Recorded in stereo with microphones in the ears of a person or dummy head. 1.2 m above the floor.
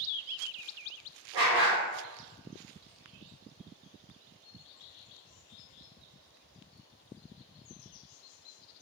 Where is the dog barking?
20° right (ahead or behind), 1.0 m.